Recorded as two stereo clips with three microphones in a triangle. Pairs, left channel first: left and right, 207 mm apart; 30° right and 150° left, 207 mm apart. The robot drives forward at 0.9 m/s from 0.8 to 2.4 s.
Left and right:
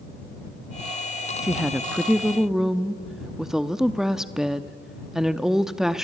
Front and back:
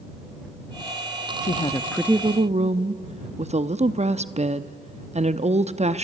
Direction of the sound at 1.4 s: 5° right.